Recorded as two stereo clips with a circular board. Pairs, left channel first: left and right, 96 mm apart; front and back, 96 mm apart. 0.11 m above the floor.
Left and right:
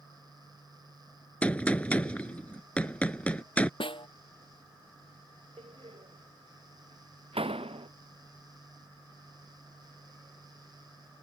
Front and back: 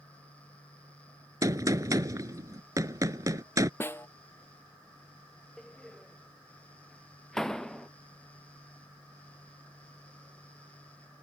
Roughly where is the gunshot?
Behind.